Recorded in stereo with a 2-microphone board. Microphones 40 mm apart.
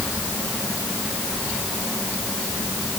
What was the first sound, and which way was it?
Only background noise.